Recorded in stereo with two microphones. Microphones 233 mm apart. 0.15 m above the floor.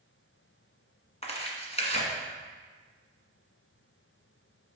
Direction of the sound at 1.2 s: 30° left (ahead or behind).